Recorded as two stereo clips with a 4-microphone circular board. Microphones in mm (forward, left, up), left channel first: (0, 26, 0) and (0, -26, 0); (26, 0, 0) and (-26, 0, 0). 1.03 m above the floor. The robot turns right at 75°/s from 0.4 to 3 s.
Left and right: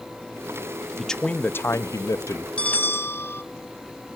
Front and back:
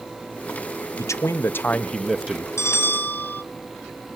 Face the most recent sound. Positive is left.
turn(degrees=50)